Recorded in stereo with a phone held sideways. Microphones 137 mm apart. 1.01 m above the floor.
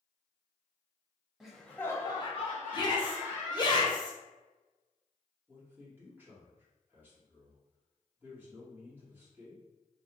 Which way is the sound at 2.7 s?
30° left (ahead or behind).